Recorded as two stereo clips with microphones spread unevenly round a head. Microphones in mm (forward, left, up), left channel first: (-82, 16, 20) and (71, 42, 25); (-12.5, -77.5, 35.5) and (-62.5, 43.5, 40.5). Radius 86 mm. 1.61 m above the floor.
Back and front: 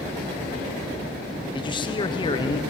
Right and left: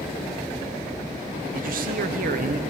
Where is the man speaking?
130° left, 0.9 m.